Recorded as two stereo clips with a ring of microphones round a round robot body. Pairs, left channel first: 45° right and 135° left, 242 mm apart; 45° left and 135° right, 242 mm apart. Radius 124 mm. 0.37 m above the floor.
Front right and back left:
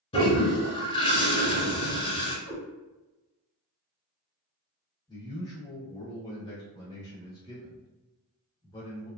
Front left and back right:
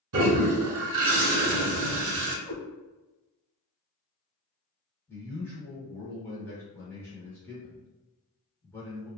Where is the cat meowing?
45° right, 1.4 m.